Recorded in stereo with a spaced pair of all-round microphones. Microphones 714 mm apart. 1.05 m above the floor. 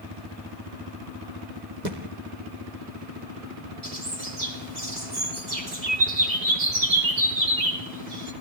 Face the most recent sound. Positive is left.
turn(degrees=-75)  # may be behind; listen again after turning